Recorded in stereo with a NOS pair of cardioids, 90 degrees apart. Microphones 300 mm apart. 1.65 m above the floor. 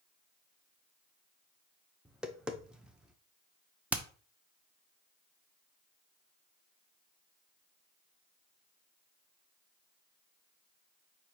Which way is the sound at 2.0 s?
5° right.